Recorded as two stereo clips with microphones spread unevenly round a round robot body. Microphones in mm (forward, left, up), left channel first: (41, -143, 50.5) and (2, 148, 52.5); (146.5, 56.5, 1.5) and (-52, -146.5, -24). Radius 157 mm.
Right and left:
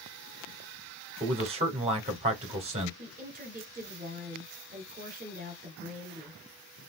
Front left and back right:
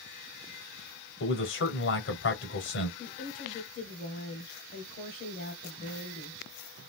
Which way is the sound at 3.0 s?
90° left.